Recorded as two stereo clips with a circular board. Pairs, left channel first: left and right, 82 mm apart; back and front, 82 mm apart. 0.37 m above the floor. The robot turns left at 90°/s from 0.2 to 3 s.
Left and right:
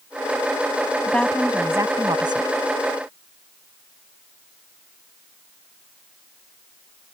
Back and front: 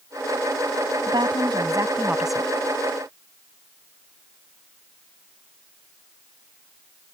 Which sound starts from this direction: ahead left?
A woman speaking, at 1.0 s.